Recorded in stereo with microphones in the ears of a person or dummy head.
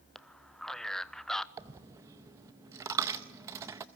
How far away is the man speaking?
About 0.5 m.